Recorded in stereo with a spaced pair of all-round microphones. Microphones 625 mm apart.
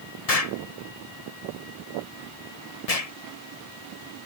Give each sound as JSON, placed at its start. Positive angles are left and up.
{"t": 0.3, "sound": "an explosion", "side_deg": 70}